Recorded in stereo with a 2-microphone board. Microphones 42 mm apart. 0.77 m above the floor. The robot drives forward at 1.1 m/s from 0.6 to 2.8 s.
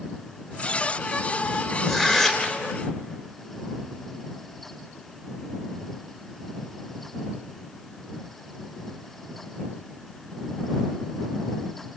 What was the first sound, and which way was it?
Tearing paper, 15° left (ahead or behind).